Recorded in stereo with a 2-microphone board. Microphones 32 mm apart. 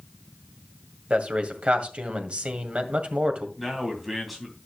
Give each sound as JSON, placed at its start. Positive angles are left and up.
{"t": 1.1, "sound": "a man speaking", "side_deg": -40, "distance_m": 1.8}
{"t": 3.6, "sound": "a man speaking", "side_deg": -5, "distance_m": 3.0}